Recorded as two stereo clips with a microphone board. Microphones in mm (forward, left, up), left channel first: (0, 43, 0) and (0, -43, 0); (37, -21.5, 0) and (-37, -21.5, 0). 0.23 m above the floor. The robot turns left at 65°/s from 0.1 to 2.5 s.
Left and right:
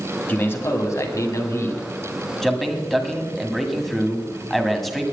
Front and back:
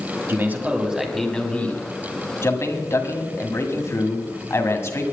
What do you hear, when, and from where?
0.3 s a man speaking: 145° left, 1.9 m; by 5.0 s 5° left, 1.9 m